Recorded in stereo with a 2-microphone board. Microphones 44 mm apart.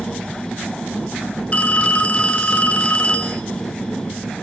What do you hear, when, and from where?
1.5 s a phone ringing: 30° left (ahead or behind), 1.7 m